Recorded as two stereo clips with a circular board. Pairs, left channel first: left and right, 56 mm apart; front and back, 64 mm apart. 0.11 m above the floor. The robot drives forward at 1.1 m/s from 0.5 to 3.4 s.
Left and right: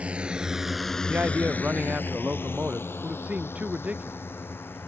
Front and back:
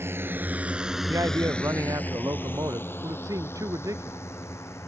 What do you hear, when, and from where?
0.0 s a drone: 150° right; by 4.9 s 40° left
1.1 s a man speaking: 150° right; by 4.2 s 155° right